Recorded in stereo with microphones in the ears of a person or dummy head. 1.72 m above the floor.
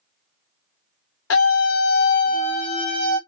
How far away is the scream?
About 0.9 m.